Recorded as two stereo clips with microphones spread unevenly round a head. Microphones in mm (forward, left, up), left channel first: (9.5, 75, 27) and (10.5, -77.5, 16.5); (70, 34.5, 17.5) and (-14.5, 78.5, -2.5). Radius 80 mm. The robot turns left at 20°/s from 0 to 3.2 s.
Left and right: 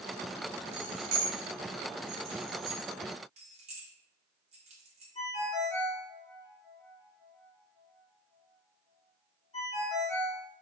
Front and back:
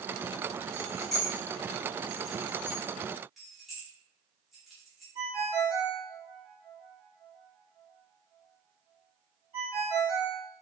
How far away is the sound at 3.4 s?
About 0.6 m.